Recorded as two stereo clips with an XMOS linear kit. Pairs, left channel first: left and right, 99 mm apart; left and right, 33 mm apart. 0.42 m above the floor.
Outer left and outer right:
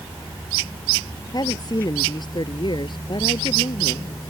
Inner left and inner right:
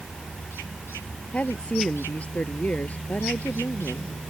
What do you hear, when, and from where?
1.3 s a woman speaking: 45° left (ahead or behind); by 4.1 s 60° left (ahead or behind)